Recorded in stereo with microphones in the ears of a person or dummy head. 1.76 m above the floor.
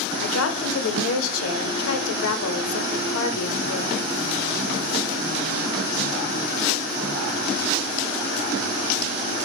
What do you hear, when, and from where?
0.2 s a woman speaking: 85° left, 0.7 m